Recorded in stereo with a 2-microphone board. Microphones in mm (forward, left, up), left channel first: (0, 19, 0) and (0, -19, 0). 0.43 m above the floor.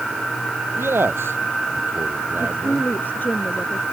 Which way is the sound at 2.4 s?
50° left (ahead or behind).